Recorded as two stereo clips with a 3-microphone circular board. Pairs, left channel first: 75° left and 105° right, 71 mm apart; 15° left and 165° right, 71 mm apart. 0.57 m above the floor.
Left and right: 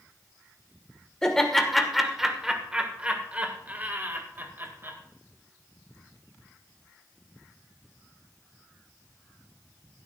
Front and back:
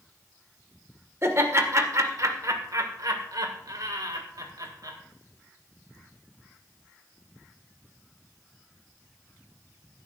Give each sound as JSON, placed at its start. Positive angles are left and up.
{"t": 1.2, "sound": "laughter", "azimuth_deg": 155, "distance_m": 2.0}